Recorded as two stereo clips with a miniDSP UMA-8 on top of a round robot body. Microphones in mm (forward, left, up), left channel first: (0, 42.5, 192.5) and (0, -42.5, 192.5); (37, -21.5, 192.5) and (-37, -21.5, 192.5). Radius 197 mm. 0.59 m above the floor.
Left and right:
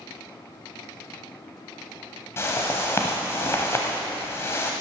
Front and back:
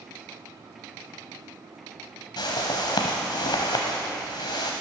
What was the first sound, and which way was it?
A whoosh, 30° left.